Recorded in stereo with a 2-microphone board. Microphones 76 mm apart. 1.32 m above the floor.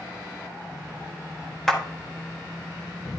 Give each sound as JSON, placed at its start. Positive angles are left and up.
{"t": 1.7, "sound": "a clap", "side_deg": 5, "distance_m": 1.3}